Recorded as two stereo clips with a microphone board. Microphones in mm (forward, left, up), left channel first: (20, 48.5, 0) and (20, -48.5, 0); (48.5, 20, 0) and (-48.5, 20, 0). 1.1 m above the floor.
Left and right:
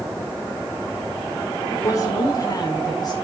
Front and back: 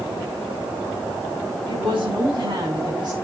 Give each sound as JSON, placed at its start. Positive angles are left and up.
{"t": 1.7, "sound": "a woman speaking", "azimuth_deg": 150, "distance_m": 8.5}